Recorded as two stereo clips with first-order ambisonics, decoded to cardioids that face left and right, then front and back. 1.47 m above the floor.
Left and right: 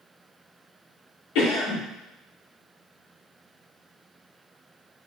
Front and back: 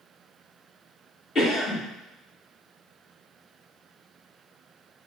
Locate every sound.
1.4 s a cough: 65° left, 1.5 m